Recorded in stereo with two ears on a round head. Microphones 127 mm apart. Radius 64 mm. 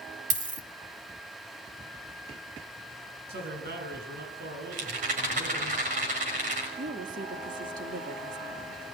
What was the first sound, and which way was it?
A dropped coin, 60° right (ahead or behind).